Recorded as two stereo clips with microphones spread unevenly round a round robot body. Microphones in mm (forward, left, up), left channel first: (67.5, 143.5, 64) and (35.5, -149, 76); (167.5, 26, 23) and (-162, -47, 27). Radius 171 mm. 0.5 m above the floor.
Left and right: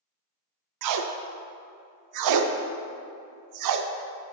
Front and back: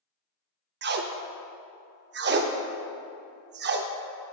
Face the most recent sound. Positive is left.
turn(degrees=-110)